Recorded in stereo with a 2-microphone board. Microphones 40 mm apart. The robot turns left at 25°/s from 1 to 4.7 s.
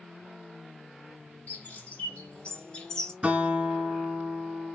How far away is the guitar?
About 1.3 m.